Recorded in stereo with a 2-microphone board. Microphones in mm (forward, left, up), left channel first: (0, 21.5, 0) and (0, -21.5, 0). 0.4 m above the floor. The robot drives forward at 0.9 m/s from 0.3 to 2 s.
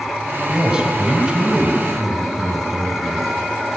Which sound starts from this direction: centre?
A man speaking, at 0.5 s.